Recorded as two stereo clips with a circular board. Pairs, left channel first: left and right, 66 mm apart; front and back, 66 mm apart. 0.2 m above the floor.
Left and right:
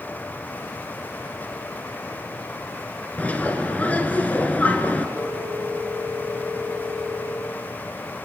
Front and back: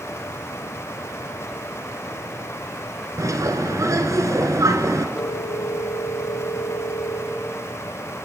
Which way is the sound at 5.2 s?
40° right.